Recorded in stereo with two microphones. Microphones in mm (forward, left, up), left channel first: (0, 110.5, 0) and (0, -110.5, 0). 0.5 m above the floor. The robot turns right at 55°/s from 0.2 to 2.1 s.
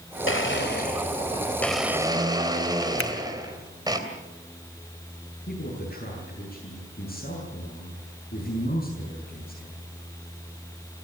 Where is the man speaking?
45° left (ahead or behind), 7 m.